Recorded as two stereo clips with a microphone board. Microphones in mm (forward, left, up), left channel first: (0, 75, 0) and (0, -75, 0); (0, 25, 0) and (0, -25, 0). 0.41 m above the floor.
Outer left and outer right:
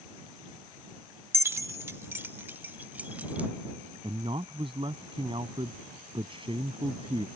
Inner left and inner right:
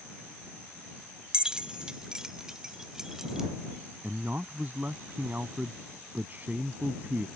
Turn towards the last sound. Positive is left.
turn(degrees=-35)  # may be behind; listen again after turning